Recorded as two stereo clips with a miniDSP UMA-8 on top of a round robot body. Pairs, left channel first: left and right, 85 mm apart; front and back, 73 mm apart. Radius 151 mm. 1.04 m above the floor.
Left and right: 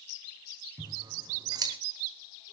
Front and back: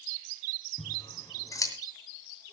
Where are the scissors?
45° right, 2.5 m.